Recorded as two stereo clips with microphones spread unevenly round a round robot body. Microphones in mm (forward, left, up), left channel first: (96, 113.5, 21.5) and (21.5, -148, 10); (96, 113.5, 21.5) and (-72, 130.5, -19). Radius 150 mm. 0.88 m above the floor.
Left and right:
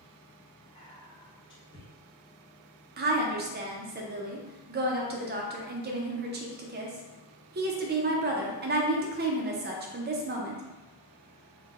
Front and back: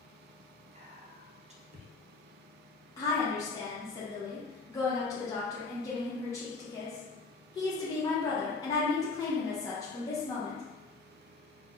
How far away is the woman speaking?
About 0.5 m.